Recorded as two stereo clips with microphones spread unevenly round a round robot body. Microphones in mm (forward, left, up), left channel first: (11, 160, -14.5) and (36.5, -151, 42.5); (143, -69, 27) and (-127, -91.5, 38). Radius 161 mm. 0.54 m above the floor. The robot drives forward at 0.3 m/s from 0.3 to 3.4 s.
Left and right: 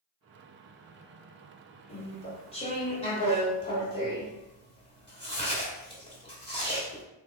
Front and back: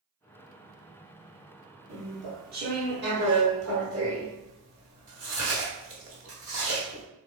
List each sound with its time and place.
1.9 s chewing: 130° left, 0.9 m; by 7.0 s 155° left, 1.1 m